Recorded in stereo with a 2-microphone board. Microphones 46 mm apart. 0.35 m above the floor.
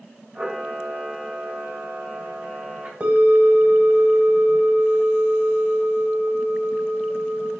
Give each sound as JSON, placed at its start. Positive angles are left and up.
{"t": 0.3, "sound": "a camera shutter", "side_deg": -45, "distance_m": 1.4}
{"t": 3.0, "sound": "a bell", "side_deg": -30, "distance_m": 0.9}